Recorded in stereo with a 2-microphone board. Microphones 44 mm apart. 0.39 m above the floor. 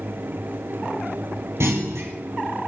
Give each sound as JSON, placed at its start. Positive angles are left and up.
{"t": 1.6, "sound": "a clunk", "side_deg": -85, "distance_m": 5.0}